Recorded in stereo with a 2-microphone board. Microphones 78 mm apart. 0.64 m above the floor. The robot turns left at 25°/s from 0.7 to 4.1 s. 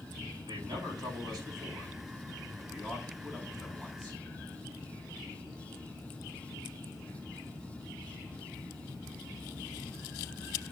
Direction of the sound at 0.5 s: 105° right.